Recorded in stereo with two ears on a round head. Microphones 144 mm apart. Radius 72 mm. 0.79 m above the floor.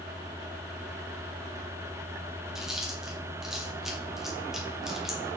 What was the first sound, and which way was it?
Chewing, 5° right (ahead or behind).